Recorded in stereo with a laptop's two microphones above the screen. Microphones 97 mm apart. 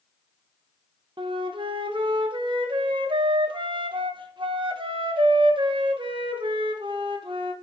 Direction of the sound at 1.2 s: 60° right (ahead or behind).